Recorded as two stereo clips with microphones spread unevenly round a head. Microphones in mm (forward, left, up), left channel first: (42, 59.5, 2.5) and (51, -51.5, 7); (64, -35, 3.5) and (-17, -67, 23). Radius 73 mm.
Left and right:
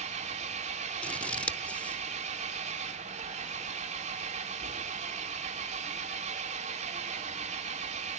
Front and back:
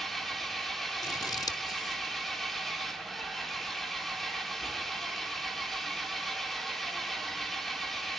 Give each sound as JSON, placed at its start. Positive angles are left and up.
{"t": 0.0, "sound": "an engine running", "azimuth_deg": -65, "distance_m": 3.0}
{"t": 1.0, "sound": "scissors", "azimuth_deg": 25, "distance_m": 0.8}